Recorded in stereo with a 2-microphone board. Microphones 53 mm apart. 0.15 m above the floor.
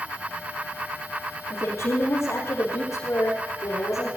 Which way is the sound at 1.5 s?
65° left (ahead or behind).